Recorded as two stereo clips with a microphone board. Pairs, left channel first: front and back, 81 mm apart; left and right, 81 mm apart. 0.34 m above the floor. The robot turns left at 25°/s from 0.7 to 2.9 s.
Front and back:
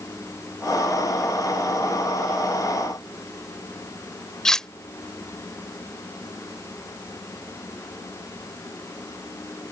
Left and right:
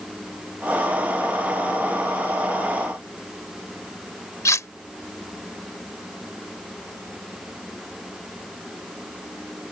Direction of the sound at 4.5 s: 80° left.